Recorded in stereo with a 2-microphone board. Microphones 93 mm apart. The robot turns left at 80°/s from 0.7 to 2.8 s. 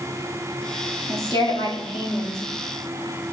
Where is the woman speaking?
145° left, 1.7 m; by 2.4 s 40° left, 1.7 m.